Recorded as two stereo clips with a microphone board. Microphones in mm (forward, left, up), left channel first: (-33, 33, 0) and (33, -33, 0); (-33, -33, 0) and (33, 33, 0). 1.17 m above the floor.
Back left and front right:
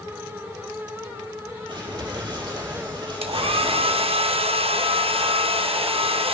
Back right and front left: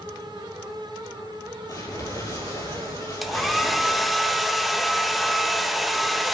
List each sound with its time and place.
1.7 s crumpling: 85° right, 7.5 m
3.2 s a hair dryer: 40° right, 0.9 m